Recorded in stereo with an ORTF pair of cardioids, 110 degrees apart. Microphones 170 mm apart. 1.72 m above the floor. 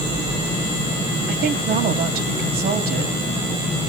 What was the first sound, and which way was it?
A woman speaking, 65° right.